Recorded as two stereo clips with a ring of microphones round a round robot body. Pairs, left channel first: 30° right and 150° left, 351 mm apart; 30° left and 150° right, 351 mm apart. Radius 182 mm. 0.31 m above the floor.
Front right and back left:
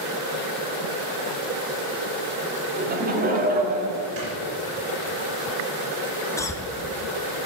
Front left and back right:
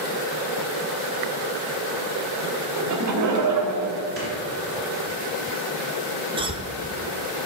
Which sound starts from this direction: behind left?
Snoring, at 4.2 s.